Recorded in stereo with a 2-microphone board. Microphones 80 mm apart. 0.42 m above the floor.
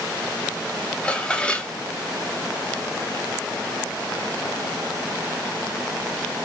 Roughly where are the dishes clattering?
Centre.